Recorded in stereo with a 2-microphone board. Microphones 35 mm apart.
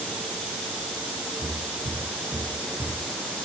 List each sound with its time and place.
1.4 s footsteps: 75° right (ahead or behind), 2.5 m; by 3.0 s 45° right (ahead or behind), 2.5 m